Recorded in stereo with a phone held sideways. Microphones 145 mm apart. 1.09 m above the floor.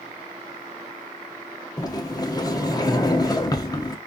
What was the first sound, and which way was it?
A sliding door, 25° left (ahead or behind).